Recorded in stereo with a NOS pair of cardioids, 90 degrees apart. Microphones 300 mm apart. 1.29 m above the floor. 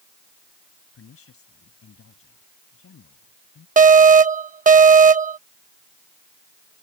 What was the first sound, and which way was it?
A woman speaking, 50° left.